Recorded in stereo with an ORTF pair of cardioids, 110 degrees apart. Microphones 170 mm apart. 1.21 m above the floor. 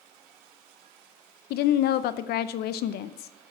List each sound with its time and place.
1.5 s a woman speaking: 70° left, 0.6 m